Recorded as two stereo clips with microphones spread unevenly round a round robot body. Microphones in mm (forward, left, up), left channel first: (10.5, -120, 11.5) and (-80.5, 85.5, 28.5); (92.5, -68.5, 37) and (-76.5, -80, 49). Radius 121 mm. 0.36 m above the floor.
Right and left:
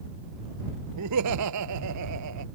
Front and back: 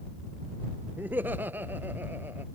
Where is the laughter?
100° left.